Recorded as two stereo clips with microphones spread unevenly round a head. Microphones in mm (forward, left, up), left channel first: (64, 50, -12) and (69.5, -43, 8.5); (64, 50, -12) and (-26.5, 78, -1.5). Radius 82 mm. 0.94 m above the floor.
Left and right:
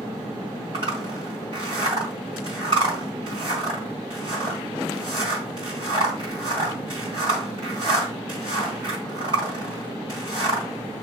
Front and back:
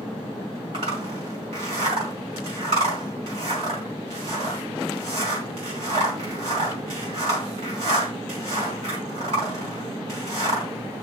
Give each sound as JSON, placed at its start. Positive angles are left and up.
{"t": 0.7, "sound": "a zipper", "azimuth_deg": -145, "distance_m": 1.9}